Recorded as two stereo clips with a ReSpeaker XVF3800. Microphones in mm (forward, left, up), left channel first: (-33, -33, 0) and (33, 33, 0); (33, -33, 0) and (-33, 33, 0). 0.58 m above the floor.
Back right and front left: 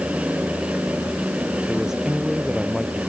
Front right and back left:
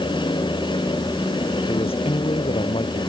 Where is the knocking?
No knocking in this recording.